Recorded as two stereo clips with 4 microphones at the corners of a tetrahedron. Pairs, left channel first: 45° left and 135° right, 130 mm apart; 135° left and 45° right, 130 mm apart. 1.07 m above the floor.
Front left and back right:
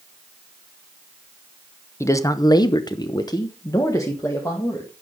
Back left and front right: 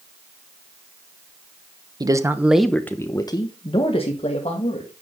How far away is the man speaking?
About 0.9 m.